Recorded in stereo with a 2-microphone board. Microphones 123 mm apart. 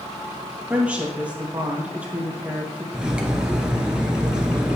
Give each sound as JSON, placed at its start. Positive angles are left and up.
{"t": 0.7, "sound": "a woman speaking", "side_deg": -10, "distance_m": 3.0}
{"t": 2.9, "sound": "cutlery clinking", "side_deg": -5, "distance_m": 1.1}